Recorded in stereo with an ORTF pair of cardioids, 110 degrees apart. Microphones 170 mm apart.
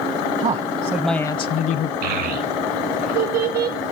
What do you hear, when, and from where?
0.4 s a man speaking: 45° right, 0.7 m; by 1.9 s 60° left, 0.8 m
2.0 s a child speaking: 70° right, 1.6 m